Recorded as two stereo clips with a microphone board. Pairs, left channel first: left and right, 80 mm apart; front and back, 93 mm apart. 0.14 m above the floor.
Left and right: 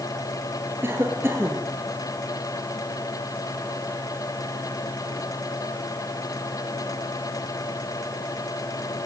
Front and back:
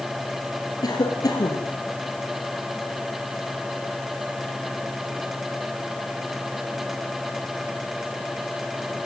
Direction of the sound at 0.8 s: 35° right.